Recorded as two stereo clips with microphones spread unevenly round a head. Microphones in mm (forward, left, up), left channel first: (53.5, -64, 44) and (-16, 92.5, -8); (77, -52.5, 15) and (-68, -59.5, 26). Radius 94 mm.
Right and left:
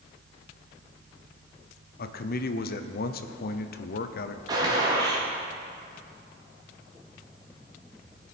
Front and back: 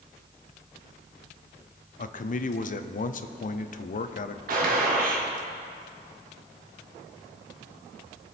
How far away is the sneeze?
I don't hear a sneeze.